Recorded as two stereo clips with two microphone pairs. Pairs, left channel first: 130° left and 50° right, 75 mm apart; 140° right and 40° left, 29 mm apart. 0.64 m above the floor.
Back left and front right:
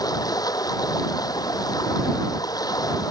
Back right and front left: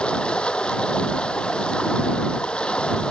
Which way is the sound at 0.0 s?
165° left.